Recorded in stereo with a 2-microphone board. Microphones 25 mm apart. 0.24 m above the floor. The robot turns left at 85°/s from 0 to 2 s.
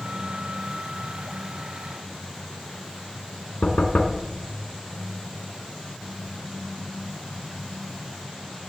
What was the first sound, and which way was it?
Knocking, 65° left (ahead or behind).